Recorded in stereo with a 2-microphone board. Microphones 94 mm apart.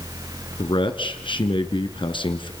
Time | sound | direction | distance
0.6 | a man speaking | 60° left (ahead or behind) | 2.5 m